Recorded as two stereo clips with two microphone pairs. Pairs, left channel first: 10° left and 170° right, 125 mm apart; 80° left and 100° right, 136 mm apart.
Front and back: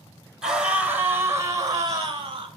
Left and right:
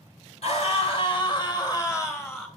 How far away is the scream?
About 2.5 m.